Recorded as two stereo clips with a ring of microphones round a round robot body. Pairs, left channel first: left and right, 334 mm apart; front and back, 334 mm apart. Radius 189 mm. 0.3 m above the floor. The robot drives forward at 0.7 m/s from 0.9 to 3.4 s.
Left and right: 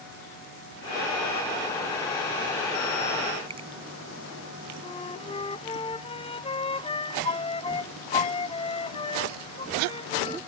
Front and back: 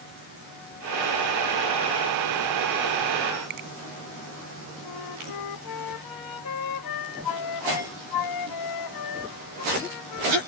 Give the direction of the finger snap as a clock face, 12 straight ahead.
5 o'clock.